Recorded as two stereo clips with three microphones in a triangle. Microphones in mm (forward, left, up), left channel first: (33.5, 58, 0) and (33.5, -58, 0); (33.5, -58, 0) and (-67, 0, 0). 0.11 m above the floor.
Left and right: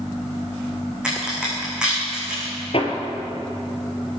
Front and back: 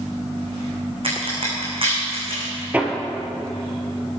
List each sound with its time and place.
1.0 s a crack: 170° right, 6 m
2.7 s hammering: 75° left, 2.5 m